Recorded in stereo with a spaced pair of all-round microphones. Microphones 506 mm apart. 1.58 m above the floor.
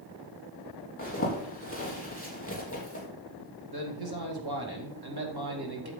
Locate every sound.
1.0 s a zipper: 25° left (ahead or behind), 3 m
3.7 s a man speaking: 45° right (ahead or behind), 2.5 m